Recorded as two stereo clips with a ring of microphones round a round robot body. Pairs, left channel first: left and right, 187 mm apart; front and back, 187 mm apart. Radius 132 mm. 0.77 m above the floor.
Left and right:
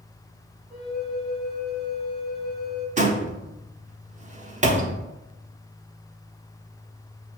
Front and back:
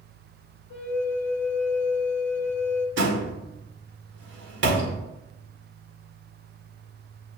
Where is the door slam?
140° right, 1.2 m.